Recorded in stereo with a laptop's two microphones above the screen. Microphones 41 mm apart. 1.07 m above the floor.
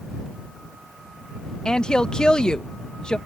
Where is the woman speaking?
20° left (ahead or behind).